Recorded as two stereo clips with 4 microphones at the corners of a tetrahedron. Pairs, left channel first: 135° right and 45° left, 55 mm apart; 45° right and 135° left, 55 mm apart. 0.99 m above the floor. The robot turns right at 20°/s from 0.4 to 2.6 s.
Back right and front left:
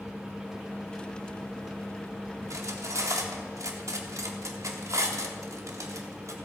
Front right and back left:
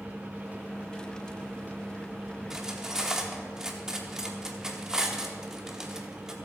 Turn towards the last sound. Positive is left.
turn(degrees=55)